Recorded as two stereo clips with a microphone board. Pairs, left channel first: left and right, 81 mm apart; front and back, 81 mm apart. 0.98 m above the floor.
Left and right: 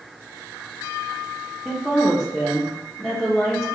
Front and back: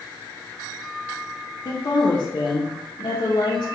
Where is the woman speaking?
Straight ahead, 0.8 m.